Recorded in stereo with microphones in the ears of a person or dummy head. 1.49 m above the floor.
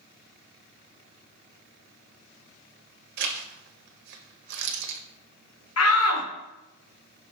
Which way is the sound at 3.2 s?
55° right (ahead or behind).